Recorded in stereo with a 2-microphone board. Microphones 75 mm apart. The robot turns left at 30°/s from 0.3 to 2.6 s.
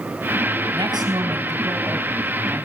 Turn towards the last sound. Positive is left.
turn(degrees=-160)